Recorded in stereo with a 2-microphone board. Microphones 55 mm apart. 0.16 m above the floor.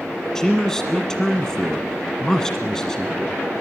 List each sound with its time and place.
0.3 s a man speaking: 10° left (ahead or behind), 1.5 m